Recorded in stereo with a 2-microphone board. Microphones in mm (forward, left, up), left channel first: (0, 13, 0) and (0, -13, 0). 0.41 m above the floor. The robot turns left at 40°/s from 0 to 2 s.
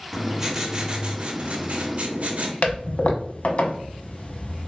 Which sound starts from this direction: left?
A toilet flushing, at 2.6 s.